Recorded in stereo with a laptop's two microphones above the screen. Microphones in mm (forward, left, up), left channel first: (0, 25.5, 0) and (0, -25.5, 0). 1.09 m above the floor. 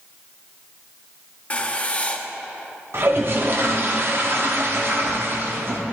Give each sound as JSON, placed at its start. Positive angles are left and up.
{"t": 1.5, "sound": "writing", "side_deg": 25, "distance_m": 0.5}
{"t": 2.9, "sound": "a toilet flushing", "side_deg": -50, "distance_m": 0.9}